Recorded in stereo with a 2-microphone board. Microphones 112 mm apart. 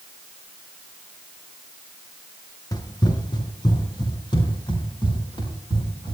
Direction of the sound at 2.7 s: 35° left (ahead or behind).